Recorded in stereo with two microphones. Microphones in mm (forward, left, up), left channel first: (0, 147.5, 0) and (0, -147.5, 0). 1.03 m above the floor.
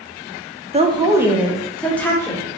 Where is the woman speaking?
20° right (ahead or behind), 0.5 m; by 2.4 s 10° left (ahead or behind), 1.3 m.